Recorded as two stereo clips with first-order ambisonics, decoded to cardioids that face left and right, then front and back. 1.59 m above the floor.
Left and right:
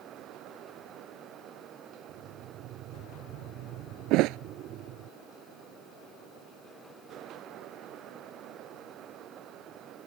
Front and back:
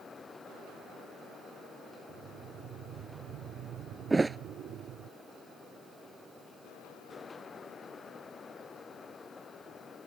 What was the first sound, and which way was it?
Breathing, 130° right.